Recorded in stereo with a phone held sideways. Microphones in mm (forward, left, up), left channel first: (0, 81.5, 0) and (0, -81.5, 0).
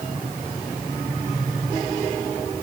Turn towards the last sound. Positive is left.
No sound to turn to.